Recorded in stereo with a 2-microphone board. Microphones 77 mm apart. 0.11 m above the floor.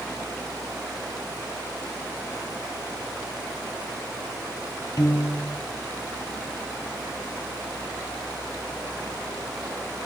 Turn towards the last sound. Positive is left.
turn(degrees=50)  # may be behind; listen again after turning